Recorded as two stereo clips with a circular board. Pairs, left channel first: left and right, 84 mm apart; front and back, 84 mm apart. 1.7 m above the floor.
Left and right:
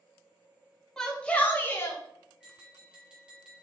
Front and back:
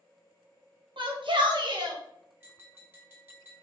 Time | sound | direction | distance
1.0 | a shout | 175° left | 1.1 m
2.4 | tapping | 155° right | 1.5 m